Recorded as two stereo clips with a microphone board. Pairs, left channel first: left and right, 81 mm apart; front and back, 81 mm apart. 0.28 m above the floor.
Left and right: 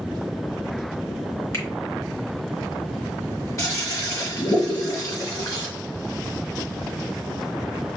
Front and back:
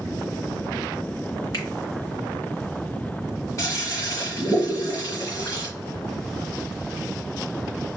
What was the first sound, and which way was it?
A finger snap, 40° left.